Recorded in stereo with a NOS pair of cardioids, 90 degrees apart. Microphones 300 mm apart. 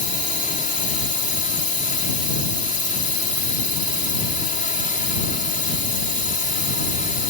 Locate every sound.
0.0 s a drone: 25° left